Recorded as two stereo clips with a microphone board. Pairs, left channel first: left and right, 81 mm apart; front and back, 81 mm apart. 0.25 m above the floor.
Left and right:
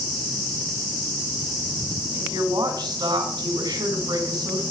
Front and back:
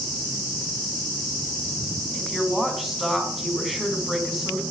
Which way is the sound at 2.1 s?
90° right.